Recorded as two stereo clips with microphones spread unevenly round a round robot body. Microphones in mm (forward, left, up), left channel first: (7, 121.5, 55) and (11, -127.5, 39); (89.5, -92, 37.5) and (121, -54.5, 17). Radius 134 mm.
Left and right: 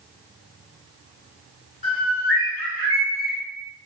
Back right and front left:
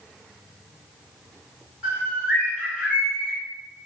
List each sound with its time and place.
1.8 s a bird: 85° left, 1.0 m